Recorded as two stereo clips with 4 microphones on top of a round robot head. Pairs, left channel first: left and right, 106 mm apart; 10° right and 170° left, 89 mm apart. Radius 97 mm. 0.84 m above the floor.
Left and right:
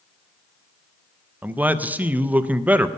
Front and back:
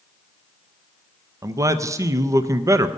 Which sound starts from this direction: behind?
A man speaking, at 1.4 s.